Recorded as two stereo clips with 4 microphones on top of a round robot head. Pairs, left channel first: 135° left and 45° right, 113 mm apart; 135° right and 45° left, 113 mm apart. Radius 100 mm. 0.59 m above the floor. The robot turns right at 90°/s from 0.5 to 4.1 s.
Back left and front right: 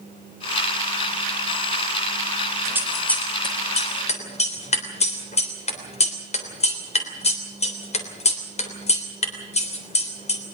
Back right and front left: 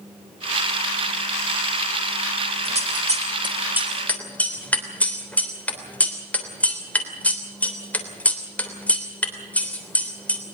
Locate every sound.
2.6 s scissors: 20° left, 3.5 m; by 10.4 s 150° left, 3.5 m